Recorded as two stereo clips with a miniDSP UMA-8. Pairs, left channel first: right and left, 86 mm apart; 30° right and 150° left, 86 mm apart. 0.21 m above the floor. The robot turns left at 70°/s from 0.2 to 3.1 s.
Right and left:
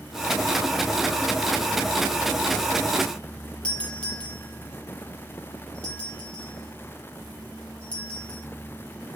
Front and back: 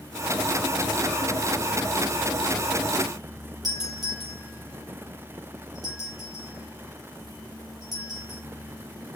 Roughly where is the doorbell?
Behind.